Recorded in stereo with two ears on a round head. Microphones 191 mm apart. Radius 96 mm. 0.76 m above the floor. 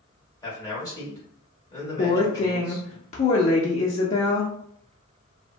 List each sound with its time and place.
0.4 s a man speaking: 20° left (ahead or behind), 1.7 m
2.0 s a woman speaking: 30° left (ahead or behind), 0.6 m